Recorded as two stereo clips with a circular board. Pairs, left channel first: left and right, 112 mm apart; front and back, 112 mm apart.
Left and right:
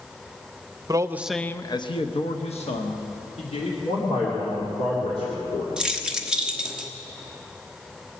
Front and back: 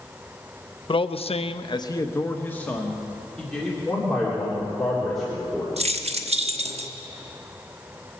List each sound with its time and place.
0.9 s a man speaking: 35° right, 0.7 m; by 3.8 s 85° left, 2.5 m
3.9 s a man speaking: 85° left, 3 m
5.8 s keys jangling: 170° right, 1.0 m